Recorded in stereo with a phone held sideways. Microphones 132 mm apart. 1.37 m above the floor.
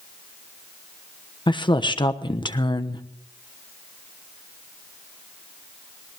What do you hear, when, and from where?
1.5 s a woman speaking: 35° left (ahead or behind), 1.1 m